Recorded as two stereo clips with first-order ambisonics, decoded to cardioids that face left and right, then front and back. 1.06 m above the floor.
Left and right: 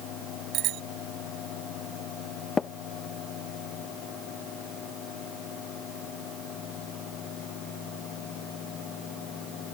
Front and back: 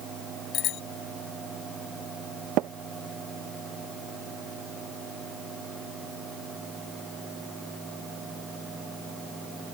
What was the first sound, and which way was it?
A bicycle bell, 45° right.